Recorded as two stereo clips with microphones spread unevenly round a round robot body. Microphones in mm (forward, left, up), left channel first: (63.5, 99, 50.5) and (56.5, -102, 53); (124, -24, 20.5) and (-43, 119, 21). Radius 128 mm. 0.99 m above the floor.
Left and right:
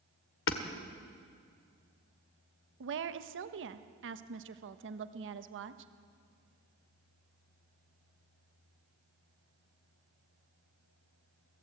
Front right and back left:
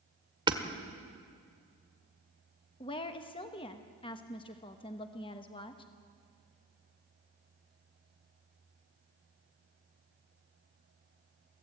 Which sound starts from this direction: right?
A woman speaking, at 2.8 s.